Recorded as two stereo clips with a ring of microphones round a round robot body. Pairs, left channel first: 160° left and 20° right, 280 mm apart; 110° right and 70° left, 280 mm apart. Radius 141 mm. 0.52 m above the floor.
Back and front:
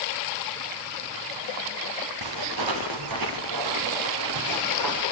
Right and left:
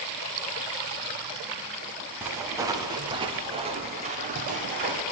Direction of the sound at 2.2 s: 15° right.